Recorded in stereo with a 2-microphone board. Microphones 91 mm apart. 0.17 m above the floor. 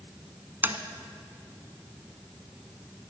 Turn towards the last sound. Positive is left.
turn(degrees=-25)  # may be behind; listen again after turning